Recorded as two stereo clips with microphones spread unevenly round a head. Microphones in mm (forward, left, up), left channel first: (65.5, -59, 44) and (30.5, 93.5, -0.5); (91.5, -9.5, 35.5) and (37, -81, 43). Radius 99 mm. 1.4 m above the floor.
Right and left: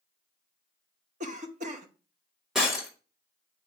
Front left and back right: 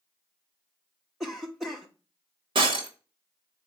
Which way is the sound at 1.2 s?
140° left.